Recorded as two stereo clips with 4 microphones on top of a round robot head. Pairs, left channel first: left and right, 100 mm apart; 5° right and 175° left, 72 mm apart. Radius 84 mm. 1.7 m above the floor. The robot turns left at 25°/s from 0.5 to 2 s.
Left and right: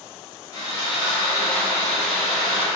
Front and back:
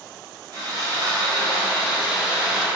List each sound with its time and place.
0.5 s sawing: 145° left, 1.7 m; by 2.6 s 110° left, 1.7 m